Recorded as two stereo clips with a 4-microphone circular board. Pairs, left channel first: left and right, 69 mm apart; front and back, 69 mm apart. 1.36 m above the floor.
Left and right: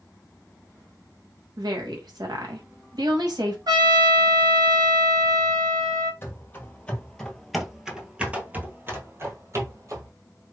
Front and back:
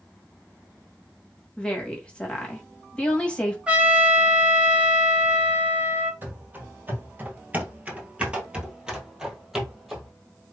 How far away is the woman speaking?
About 1.8 m.